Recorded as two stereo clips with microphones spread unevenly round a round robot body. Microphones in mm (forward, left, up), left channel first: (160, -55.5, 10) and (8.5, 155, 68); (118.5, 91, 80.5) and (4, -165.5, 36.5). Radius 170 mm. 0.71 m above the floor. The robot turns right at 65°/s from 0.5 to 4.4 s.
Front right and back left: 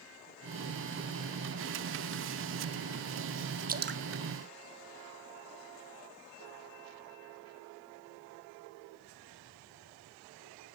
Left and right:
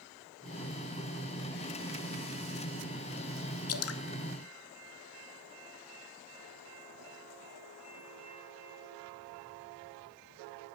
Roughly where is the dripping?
Ahead left.